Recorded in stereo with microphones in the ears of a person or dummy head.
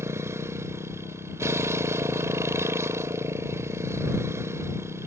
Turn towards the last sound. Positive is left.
turn(degrees=-10)  # may be behind; listen again after turning